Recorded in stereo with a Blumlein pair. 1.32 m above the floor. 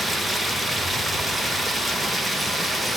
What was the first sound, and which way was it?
Running water, straight ahead.